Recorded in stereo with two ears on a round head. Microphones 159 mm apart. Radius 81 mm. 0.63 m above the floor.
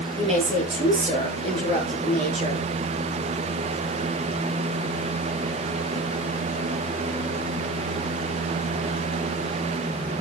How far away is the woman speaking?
About 9 m.